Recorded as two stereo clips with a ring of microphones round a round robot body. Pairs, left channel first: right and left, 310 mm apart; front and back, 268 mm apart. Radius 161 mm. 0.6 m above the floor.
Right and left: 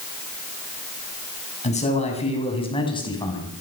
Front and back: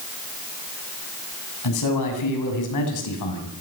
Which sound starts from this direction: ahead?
A man speaking, at 1.6 s.